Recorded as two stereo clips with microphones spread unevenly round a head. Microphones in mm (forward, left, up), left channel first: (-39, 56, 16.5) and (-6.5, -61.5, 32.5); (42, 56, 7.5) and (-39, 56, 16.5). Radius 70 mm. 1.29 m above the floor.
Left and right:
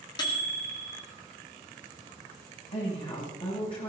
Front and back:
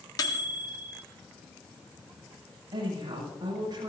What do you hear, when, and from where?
0.2 s a microwave: 40° left, 1.9 m
2.7 s a woman speaking: 145° left, 9 m